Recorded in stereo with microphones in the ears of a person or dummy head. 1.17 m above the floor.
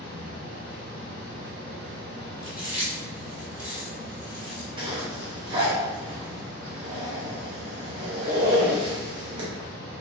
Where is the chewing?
10° right (ahead or behind), 1.5 m.